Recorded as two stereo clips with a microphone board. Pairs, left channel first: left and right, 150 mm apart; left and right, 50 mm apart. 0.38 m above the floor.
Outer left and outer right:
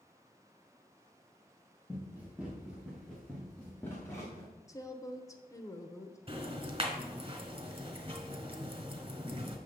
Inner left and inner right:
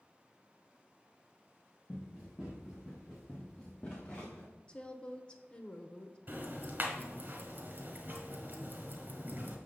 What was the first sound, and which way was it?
Running footsteps, 15° right (ahead or behind).